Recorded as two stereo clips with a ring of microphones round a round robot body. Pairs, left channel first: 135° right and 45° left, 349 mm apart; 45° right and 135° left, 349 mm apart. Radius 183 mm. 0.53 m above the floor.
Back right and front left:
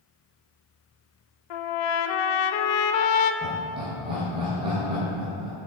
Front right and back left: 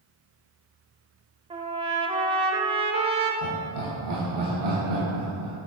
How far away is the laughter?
About 3 m.